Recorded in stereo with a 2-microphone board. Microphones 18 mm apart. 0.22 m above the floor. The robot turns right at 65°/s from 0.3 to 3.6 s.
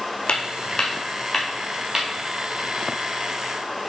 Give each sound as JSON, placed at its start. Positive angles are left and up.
{"t": 0.3, "sound": "footsteps", "side_deg": 55, "distance_m": 0.9}